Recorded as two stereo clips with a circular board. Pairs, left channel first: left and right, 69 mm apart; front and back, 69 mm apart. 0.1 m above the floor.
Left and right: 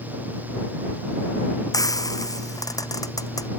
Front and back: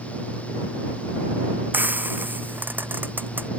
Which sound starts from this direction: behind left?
Frying, at 1.7 s.